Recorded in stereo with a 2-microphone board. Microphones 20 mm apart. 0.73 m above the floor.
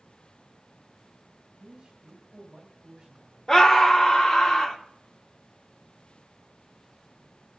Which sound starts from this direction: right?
A man speaking, at 1.6 s.